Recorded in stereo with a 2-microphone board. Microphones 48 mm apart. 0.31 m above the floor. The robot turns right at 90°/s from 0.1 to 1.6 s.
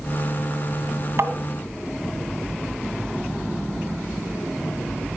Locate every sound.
1.2 s tapping: 60° right (ahead or behind), 2.0 m; by 1.3 s 65° right (ahead or behind), 2.0 m